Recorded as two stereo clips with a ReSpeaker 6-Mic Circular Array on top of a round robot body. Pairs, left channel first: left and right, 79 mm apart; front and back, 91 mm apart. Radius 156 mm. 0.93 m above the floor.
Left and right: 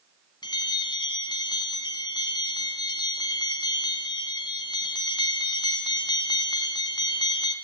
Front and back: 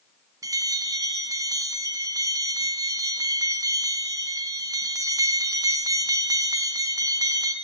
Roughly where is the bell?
Behind left.